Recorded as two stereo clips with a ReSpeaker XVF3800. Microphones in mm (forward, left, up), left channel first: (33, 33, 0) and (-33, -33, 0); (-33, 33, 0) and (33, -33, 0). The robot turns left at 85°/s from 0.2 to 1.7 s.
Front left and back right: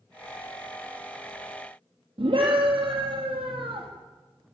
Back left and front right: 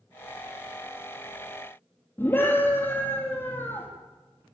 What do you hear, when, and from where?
2.2 s a scream: 155° right, 5 m